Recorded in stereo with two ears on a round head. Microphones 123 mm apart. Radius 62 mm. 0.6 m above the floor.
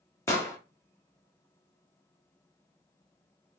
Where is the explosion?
20° left (ahead or behind), 1.3 m.